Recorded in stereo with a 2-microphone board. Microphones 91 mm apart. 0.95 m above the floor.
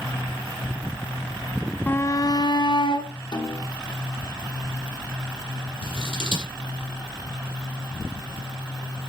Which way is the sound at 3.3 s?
60° left (ahead or behind).